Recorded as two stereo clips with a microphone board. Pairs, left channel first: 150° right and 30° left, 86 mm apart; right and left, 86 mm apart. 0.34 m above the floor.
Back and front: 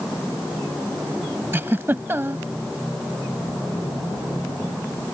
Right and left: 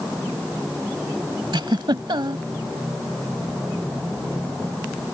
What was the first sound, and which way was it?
A giggle, 90° left.